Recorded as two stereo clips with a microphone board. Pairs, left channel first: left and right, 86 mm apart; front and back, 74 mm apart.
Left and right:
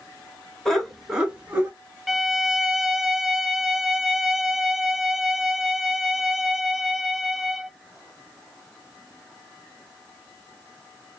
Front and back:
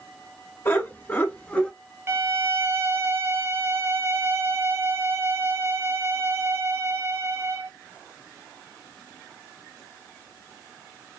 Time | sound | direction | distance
0.7 | laughter | 10° left | 1.3 m
2.1 | a violin | 170° right | 0.5 m